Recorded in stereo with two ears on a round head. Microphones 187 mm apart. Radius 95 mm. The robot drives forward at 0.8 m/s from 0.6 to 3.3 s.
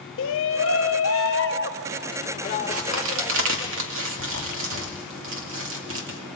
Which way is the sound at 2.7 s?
80° right.